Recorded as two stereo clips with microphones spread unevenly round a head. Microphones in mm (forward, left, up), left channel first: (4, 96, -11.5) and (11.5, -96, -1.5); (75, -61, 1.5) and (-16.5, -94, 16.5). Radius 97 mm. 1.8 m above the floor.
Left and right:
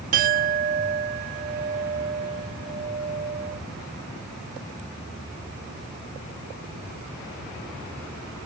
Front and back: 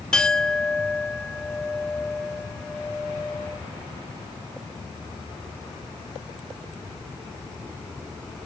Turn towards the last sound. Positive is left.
turn(degrees=-70)